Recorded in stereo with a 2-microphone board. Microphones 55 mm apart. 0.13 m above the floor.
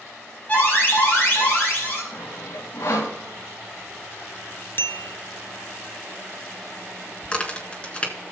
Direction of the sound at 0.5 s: 30° left (ahead or behind).